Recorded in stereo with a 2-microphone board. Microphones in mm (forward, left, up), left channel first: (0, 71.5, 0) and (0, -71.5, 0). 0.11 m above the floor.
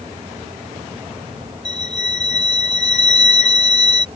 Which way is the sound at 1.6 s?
50° left (ahead or behind).